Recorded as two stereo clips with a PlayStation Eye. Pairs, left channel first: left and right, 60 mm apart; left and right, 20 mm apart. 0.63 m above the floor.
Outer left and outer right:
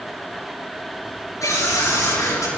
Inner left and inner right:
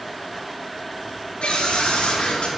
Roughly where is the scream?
Left.